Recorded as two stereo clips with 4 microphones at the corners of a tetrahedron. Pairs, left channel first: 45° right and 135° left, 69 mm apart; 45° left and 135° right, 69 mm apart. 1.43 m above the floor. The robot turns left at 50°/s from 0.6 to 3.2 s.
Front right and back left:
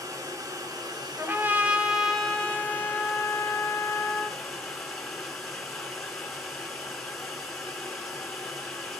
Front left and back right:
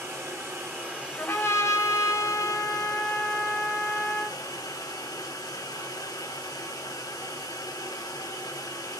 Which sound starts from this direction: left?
A trumpet, at 1.2 s.